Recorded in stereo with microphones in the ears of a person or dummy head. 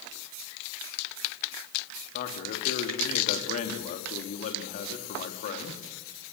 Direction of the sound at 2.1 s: 35° left (ahead or behind).